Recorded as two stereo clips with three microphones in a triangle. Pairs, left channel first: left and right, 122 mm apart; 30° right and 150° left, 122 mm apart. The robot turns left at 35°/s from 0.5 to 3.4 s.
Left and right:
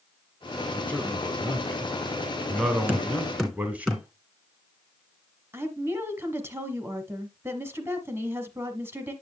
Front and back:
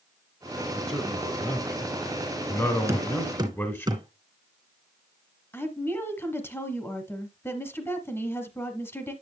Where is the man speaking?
55° left, 1.1 m; by 3.9 s 40° right, 1.1 m.